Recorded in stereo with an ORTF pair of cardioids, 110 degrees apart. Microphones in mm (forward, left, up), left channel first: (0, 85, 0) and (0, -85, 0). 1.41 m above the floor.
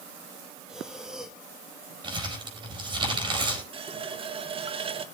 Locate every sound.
0.7 s breathing: 5° right, 1.6 m
2.0 s crumpling: 30° right, 5 m
3.7 s a running tap: 35° right, 1.2 m